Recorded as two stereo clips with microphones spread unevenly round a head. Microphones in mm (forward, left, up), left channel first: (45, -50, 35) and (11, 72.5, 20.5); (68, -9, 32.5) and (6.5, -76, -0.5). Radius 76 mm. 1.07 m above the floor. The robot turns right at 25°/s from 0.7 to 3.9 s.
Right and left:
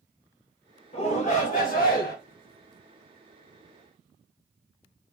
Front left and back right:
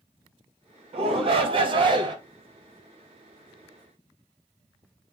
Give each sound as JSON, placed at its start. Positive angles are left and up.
{"t": 0.9, "sound": "a shout", "azimuth_deg": -130, "distance_m": 1.2}